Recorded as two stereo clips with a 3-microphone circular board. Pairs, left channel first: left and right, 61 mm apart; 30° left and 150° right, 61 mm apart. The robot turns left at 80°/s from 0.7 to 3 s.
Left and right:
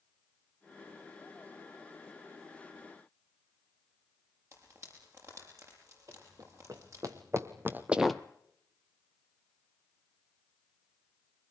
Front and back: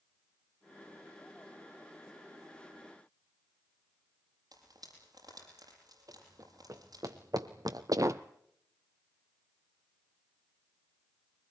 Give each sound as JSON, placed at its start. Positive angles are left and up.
{"t": 4.5, "sound": "frying", "azimuth_deg": -130, "distance_m": 7.5}
{"t": 6.1, "sound": "running footsteps", "azimuth_deg": -115, "distance_m": 3.5}